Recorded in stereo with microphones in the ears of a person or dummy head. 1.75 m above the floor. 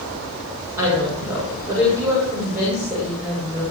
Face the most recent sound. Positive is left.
turn(degrees=-5)  # may be behind; listen again after turning